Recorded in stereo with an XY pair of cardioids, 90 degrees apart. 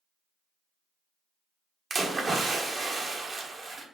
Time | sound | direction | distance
1.9 | a splash | 50° right | 1.6 m